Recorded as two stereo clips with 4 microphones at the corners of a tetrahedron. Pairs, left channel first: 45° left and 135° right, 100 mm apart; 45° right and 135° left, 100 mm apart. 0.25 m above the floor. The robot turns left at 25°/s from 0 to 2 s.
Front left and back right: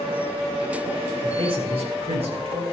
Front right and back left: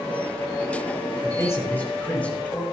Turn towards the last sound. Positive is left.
turn(degrees=-120)